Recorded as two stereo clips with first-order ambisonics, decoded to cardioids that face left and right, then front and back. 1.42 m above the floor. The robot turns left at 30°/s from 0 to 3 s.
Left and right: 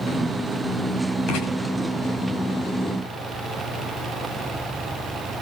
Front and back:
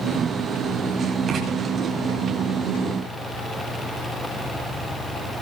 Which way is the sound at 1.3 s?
120° left.